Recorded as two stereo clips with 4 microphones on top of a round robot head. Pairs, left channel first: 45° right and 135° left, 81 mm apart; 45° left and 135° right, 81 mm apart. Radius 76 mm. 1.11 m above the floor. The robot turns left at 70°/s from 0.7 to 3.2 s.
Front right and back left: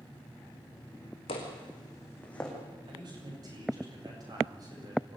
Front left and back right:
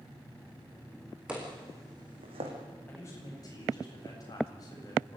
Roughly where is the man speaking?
Behind left.